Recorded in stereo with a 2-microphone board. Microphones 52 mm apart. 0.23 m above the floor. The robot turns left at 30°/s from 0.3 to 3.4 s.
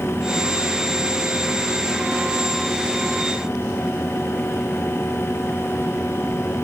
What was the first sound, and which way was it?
Only background noise.